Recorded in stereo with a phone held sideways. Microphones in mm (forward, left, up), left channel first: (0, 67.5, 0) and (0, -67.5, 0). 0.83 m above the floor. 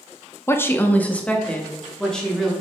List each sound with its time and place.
0.5 s a woman speaking: 20° left (ahead or behind), 0.6 m; by 2.5 s 5° left (ahead or behind), 2.0 m